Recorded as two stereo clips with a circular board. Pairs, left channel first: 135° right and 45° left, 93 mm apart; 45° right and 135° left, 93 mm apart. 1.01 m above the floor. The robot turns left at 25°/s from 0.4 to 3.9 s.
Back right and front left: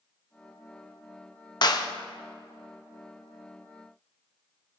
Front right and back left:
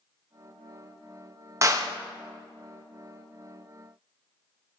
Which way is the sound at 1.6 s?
175° right.